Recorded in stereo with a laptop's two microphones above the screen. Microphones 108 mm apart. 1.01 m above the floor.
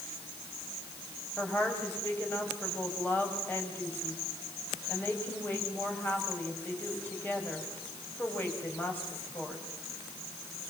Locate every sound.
1.4 s a woman speaking: 15° left (ahead or behind), 5 m